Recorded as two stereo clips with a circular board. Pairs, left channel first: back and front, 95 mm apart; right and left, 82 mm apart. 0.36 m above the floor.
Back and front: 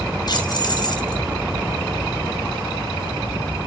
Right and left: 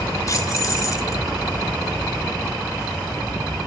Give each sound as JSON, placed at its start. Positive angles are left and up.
{"t": 0.3, "sound": "keys jangling", "azimuth_deg": -135, "distance_m": 3.5}